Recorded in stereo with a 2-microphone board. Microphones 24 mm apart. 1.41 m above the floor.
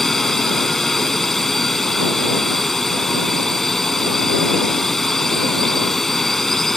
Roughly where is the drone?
Centre.